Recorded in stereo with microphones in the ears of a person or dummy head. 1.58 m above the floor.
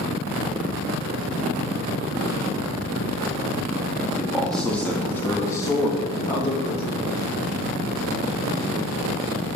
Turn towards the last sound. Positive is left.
turn(degrees=45)  # may be behind; listen again after turning